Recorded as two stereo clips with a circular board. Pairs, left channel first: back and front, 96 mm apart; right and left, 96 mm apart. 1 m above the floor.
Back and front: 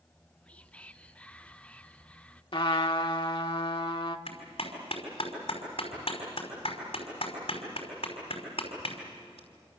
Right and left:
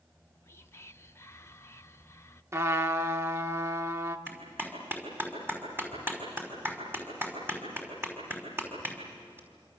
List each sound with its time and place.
0.1 s whispering: 115° right, 0.6 m
2.5 s a trumpet: 155° left, 1.3 m
4.3 s a clap: 160° left, 5 m